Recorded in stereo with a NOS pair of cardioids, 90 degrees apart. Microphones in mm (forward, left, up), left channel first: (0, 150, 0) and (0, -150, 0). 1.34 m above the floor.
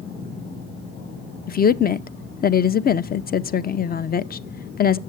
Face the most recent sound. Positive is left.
turn(degrees=35)